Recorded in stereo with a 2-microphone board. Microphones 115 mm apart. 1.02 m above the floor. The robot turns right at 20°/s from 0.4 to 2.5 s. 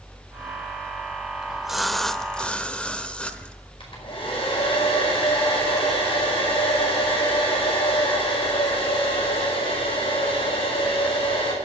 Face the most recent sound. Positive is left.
turn(degrees=50)  # may be behind; listen again after turning